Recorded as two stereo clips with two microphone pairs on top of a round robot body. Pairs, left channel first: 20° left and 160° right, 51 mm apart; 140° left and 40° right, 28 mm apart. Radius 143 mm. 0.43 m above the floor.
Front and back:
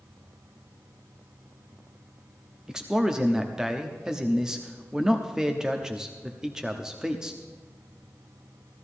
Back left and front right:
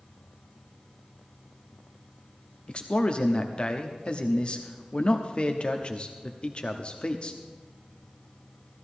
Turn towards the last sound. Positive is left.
turn(degrees=130)